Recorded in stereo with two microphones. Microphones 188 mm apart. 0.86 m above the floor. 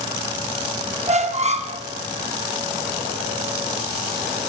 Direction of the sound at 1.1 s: 35° right (ahead or behind).